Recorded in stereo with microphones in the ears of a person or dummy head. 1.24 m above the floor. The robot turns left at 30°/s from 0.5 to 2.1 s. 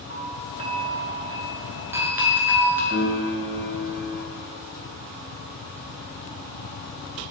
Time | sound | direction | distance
0.1 | a doorbell | 25° right (ahead or behind) | 1.1 m
2.9 | a piano | 5° right (ahead or behind) | 2 m